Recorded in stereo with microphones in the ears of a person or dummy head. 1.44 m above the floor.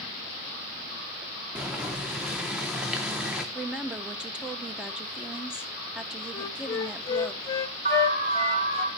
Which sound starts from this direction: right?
An alarm, at 7.8 s.